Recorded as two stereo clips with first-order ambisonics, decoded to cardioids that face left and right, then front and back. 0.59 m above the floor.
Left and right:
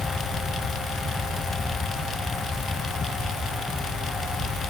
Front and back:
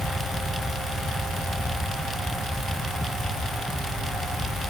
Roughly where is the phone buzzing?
No phone buzzing in this recording.